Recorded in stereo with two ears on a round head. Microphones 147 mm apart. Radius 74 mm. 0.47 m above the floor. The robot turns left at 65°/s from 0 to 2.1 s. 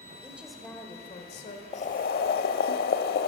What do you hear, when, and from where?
0.2 s a woman speaking: 160° right, 1.7 m; by 1.6 s 110° left, 1.7 m
1.7 s boiling: 40° left (ahead or behind), 0.6 m; by 3.3 s 65° left (ahead or behind), 0.6 m